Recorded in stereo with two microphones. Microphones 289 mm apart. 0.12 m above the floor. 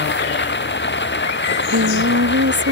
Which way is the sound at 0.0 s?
40° left (ahead or behind).